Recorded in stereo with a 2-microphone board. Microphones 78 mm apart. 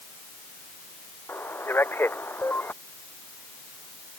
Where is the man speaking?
25° left (ahead or behind).